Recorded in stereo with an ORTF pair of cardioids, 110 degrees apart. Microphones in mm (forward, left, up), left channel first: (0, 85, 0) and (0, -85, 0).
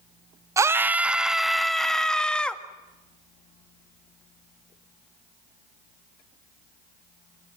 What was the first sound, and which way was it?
A scream, 20° right.